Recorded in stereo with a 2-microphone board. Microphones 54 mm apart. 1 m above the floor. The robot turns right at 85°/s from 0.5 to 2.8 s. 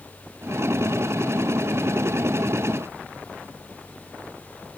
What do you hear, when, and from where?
Only background noise.